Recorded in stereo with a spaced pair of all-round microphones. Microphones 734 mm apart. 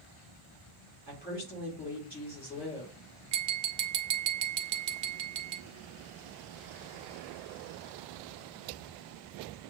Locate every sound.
1.1 s a woman speaking: 10° left (ahead or behind), 3 m
3.3 s tapping: 80° right, 0.8 m